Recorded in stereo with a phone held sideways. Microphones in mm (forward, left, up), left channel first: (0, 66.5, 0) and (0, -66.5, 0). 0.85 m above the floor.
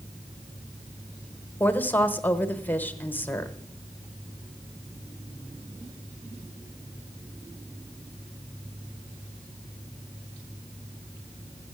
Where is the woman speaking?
15° left (ahead or behind), 0.9 m.